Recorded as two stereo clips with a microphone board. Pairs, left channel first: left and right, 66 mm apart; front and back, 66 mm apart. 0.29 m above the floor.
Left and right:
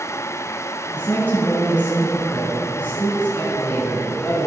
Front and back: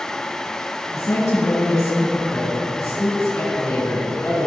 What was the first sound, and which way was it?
A woman speaking, 30° left.